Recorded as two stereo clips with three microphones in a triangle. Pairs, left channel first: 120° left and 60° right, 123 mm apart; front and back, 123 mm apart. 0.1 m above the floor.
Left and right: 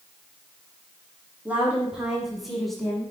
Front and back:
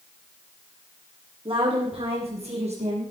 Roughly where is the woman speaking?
Behind right.